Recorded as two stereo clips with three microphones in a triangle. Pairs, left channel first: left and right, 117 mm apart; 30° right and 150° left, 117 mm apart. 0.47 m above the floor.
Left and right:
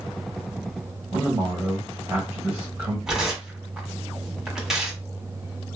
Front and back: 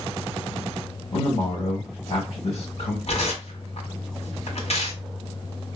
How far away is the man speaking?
About 1.9 m.